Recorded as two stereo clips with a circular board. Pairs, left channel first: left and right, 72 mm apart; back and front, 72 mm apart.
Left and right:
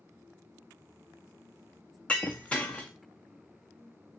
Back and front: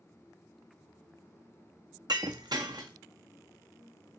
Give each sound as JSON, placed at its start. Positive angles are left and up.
{"t": 2.1, "sound": "breaking glass", "azimuth_deg": 15, "distance_m": 1.4}